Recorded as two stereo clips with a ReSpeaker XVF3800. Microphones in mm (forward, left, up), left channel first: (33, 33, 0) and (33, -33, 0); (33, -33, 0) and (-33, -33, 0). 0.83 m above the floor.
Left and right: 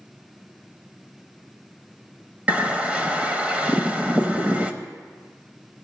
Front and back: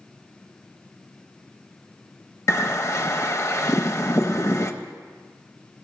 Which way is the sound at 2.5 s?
25° right.